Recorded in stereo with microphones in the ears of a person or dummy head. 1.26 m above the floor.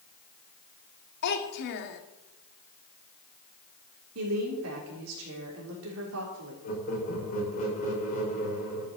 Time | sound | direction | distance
1.2 | a child speaking | 55° left (ahead or behind) | 1.8 m
4.2 | a woman speaking | 85° right | 3.5 m
6.6 | laughter | 40° left (ahead or behind) | 6 m